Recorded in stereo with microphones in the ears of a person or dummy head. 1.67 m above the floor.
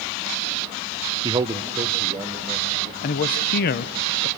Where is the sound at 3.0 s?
50° left (ahead or behind), 0.6 m.